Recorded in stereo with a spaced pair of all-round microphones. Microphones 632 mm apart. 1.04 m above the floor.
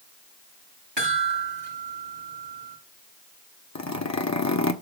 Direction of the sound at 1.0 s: 40° right (ahead or behind).